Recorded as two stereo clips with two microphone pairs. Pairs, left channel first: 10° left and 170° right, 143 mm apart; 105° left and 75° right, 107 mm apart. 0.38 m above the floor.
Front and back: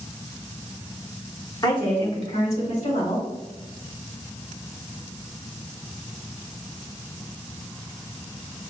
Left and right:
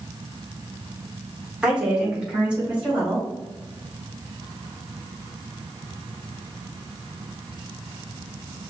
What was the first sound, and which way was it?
A woman speaking, straight ahead.